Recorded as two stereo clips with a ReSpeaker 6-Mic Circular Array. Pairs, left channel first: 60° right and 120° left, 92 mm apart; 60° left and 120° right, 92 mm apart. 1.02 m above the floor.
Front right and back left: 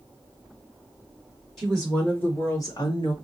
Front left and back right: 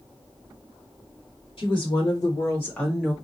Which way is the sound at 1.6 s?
40° left.